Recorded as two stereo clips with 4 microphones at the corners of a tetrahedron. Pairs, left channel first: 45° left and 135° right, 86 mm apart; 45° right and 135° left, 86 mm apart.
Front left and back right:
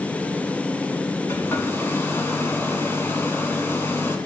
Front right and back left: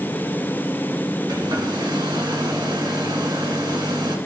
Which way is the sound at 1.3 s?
105° left.